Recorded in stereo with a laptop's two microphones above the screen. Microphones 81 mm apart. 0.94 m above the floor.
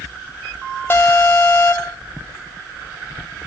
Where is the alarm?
30° left (ahead or behind), 0.6 m.